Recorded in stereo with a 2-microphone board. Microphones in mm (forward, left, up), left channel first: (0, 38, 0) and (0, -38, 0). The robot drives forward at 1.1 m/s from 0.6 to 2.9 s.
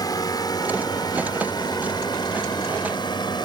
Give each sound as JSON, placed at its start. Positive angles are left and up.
{"t": 0.0, "sound": "a drone", "side_deg": 60}